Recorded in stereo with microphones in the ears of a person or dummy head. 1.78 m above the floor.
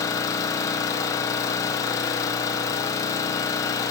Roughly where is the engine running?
Centre.